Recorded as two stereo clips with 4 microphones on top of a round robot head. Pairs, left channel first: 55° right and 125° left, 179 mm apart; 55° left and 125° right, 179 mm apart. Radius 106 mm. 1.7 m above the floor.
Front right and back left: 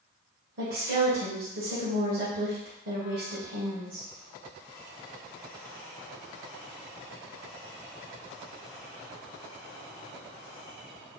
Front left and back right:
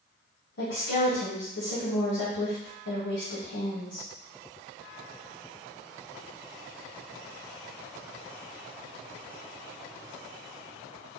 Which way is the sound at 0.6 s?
95° left.